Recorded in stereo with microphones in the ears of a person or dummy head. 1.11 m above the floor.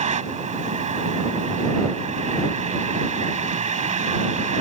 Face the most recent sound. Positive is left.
turn(degrees=-40)  # may be behind; listen again after turning